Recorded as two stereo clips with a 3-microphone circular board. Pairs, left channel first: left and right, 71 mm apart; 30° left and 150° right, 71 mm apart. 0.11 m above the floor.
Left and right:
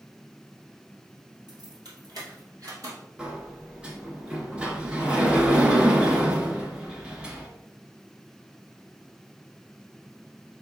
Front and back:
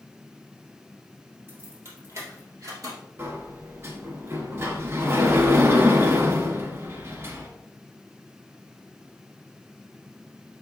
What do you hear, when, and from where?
1.5 s keys jangling: 95° right, 3 m; by 3.0 s 125° right, 2.5 m
3.2 s a sliding door: 160° right, 1.1 m